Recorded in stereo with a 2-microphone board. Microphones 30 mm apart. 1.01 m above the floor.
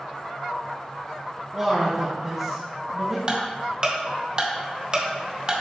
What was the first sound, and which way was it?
A man speaking, 20° right (ahead or behind).